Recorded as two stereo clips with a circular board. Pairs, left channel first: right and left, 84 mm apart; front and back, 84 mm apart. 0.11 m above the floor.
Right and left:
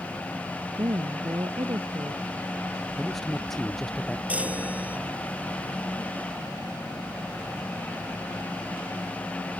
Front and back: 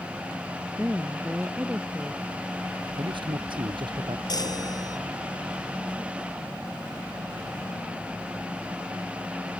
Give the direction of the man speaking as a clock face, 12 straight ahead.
6 o'clock.